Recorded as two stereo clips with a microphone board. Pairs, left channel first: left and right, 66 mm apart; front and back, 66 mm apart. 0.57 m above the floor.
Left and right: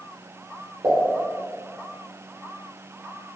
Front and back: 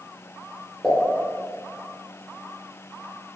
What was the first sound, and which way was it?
A pop, 80° right.